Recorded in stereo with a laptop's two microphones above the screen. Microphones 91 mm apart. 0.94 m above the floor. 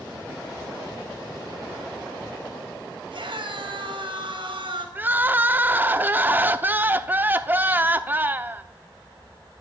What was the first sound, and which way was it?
A scream, 70° right (ahead or behind).